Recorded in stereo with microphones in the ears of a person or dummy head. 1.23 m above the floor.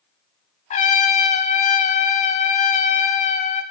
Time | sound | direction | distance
0.7 | a trumpet | 30° left (ahead or behind) | 0.6 m